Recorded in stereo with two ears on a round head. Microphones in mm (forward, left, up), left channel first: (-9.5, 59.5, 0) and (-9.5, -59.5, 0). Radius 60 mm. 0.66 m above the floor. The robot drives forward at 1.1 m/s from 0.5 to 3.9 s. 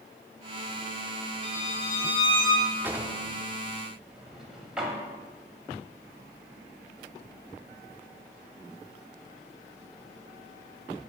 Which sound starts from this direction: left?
A violin, at 1.4 s.